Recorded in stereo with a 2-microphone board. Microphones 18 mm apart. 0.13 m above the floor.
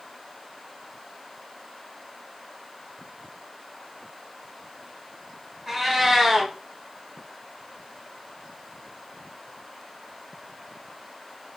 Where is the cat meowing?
10° right (ahead or behind), 1.2 m.